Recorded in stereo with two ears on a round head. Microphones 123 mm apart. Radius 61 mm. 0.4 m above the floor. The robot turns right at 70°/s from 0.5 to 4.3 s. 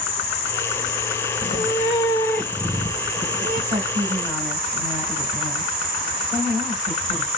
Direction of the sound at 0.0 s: 50° left.